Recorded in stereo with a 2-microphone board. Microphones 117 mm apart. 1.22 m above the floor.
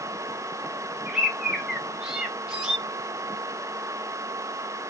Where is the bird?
5° right (ahead or behind), 0.7 m.